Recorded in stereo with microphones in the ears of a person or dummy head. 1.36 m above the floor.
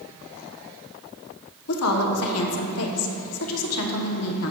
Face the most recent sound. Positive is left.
turn(degrees=85)